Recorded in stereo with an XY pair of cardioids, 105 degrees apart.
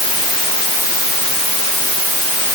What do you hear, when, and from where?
Only background noise.